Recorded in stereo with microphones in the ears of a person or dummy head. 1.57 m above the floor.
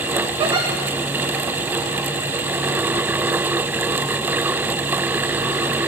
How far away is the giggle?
About 0.9 m.